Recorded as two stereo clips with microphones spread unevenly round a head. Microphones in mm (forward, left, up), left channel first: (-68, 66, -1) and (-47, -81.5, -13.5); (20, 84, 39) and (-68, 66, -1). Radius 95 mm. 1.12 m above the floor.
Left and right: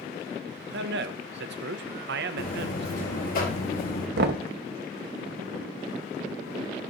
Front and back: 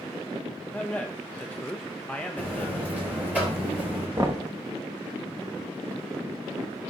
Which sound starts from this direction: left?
A buzzer, at 2.4 s.